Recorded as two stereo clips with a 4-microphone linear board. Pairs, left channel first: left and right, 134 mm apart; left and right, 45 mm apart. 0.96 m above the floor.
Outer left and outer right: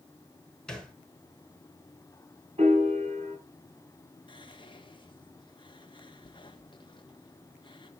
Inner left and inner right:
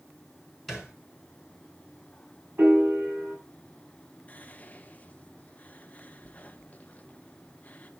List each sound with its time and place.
0.7 s a thud: 5° left (ahead or behind), 4.5 m
2.6 s a piano: 50° right (ahead or behind), 6 m
4.3 s whispering: 35° left (ahead or behind), 1.3 m